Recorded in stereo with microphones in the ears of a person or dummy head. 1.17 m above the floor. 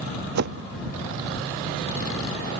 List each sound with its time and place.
0.3 s a whoosh: 70° right (ahead or behind)